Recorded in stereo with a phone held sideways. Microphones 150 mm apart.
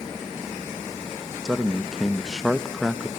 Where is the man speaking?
Centre (ahead or behind), 0.7 m.